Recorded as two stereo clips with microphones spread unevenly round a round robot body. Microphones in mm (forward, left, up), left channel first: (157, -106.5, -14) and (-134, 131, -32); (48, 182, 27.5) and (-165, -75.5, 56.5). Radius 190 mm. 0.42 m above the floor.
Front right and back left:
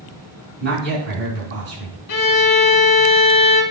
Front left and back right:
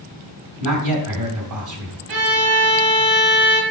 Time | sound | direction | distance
0.6 | a man speaking | 160° right | 3 m
2.1 | a violin | 95° right | 1.0 m